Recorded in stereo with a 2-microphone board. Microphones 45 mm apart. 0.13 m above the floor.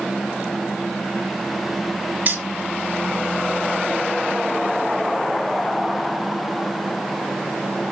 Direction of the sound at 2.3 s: 50° right (ahead or behind).